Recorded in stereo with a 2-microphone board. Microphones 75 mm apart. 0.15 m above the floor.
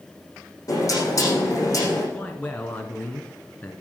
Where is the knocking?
45° left (ahead or behind), 6 m.